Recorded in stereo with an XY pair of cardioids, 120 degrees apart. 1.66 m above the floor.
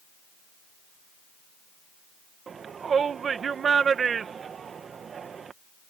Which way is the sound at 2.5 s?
40° right.